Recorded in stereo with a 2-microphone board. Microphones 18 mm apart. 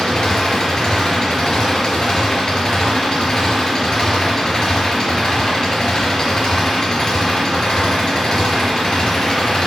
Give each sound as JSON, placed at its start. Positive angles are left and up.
{"t": 0.0, "sound": "an engine running", "side_deg": 40, "distance_m": 4.0}